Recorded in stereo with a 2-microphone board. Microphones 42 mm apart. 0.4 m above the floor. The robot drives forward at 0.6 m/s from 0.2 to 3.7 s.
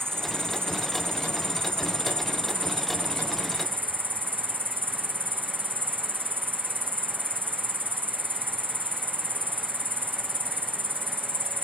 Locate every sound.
0.0 s an insect: 65° right (ahead or behind); by 11.6 s 55° right (ahead or behind)